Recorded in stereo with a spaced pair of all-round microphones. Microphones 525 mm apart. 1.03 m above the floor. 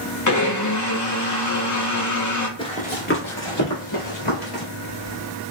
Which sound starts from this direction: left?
A blender, at 0.3 s.